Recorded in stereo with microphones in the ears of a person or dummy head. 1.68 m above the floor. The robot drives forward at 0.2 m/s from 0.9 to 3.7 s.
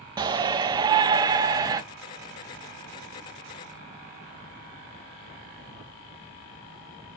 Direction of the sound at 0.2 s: 20° right (ahead or behind).